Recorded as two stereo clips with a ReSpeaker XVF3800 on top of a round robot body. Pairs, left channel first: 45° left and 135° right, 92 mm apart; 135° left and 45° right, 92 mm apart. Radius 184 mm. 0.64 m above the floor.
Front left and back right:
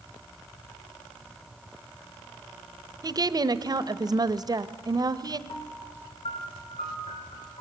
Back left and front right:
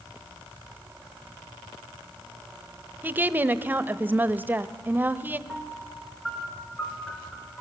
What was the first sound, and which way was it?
A woman speaking, 110° right.